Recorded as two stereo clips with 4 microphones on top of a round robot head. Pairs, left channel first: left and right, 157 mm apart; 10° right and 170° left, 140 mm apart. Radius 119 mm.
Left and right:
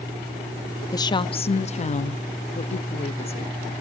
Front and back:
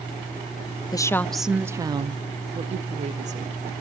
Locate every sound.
0.9 s a woman speaking: 35° left, 0.6 m; by 3.8 s 140° left, 1.5 m